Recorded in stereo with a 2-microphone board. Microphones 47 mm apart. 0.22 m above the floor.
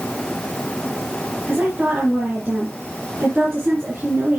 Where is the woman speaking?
25° right (ahead or behind), 2.5 m.